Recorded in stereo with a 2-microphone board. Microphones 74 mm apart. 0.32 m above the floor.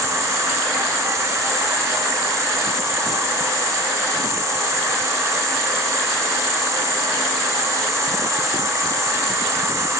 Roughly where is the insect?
Right.